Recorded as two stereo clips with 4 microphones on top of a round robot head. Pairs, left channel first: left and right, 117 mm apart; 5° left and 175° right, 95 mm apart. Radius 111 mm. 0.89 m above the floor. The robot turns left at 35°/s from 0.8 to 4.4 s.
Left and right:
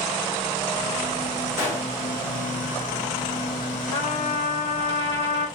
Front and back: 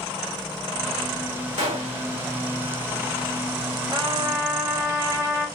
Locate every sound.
1.6 s a gunshot: 160° right, 1.9 m; by 2.0 s 175° right, 1.9 m
3.9 s a trumpet: 140° left, 1.8 m; by 5.5 s 125° left, 1.8 m